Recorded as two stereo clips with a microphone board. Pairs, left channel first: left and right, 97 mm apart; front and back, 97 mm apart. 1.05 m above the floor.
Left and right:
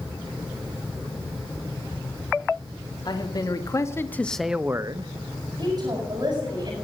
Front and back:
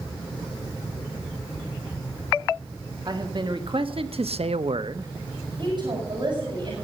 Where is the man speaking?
135° left, 1.9 m; by 5.1 s 125° right, 0.8 m.